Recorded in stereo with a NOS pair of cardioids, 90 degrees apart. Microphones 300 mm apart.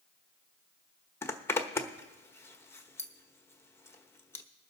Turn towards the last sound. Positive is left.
turn(degrees=10)